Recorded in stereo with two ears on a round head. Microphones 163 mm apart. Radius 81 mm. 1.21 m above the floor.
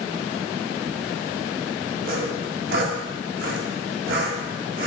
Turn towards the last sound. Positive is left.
turn(degrees=-55)  # may be behind; listen again after turning